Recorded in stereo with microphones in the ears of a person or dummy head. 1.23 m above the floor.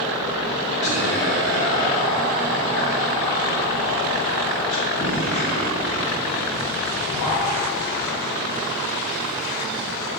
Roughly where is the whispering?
Left.